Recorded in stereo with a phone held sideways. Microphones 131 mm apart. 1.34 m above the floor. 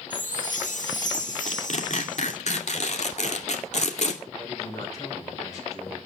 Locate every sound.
0.1 s a chime: 75° left (ahead or behind), 2.0 m
1.5 s tearing paper: 60° left (ahead or behind), 2.5 m
4.4 s a man speaking: 30° left (ahead or behind), 5.5 m